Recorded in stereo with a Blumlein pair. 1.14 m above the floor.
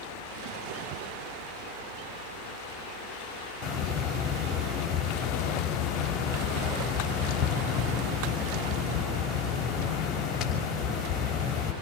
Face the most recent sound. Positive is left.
turn(degrees=25)